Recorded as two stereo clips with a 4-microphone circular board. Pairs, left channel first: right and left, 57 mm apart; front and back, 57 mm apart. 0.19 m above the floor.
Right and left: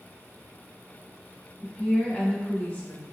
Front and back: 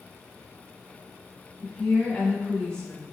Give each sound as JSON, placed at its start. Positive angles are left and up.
{"t": 1.6, "sound": "a woman speaking", "azimuth_deg": -55, "distance_m": 1.1}